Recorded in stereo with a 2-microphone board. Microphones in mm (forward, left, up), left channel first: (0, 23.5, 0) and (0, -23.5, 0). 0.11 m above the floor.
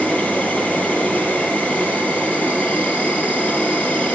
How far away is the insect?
About 4 m.